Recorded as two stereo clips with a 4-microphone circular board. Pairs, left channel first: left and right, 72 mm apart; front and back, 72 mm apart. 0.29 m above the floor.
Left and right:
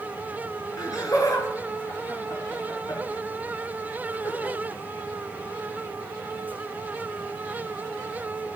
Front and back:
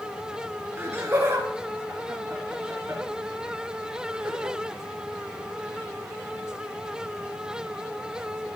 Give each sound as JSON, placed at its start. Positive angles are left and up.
{"t": 0.8, "sound": "laughter", "azimuth_deg": 125, "distance_m": 4.0}